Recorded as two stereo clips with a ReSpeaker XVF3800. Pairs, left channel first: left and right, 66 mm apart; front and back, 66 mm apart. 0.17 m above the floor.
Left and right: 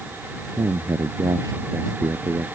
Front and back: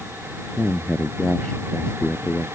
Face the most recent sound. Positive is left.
turn(degrees=-75)